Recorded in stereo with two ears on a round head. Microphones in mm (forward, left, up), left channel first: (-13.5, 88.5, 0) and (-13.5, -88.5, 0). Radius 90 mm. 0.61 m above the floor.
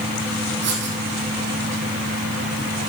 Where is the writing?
60° right (ahead or behind), 3.5 m.